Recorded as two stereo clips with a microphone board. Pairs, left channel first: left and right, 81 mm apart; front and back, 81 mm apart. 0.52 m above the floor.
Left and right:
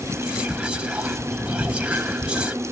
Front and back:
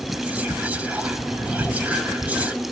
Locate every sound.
0.1 s whispering: 145° right, 1.0 m